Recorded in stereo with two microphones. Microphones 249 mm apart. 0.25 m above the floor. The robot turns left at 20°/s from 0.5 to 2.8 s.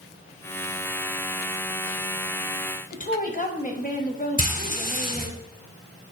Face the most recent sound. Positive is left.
turn(degrees=35)  # may be behind; listen again after turning